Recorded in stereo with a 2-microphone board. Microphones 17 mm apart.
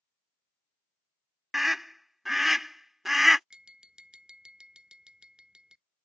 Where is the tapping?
60° right (ahead or behind).